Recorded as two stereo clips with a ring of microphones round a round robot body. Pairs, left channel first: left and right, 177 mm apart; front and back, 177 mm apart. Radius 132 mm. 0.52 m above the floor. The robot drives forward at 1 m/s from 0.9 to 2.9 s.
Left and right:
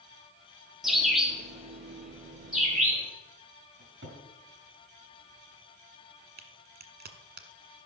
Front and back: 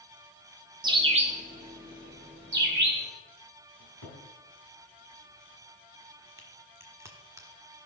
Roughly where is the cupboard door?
Behind right.